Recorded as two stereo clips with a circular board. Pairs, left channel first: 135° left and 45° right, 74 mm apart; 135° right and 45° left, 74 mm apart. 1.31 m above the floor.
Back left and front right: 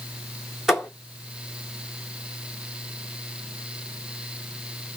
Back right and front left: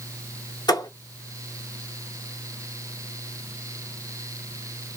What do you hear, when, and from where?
0.7 s a thud: 125° right, 1.8 m